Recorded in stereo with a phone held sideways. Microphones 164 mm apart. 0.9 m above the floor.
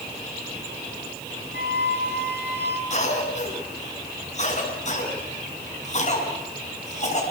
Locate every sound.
1.5 s a flute: 70° left (ahead or behind), 4 m
2.9 s a cough: 45° left (ahead or behind), 8.5 m